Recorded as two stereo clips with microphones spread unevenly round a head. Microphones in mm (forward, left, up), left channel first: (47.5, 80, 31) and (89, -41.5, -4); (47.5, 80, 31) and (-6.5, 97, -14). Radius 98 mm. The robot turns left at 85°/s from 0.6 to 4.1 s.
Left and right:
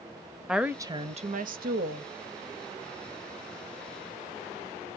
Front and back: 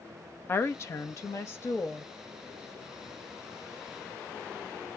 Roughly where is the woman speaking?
Ahead.